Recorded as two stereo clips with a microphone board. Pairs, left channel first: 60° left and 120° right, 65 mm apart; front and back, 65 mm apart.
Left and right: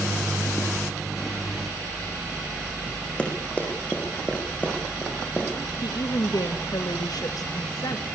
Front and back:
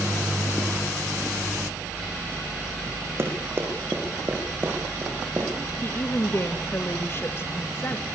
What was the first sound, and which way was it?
Running footsteps, 130° left.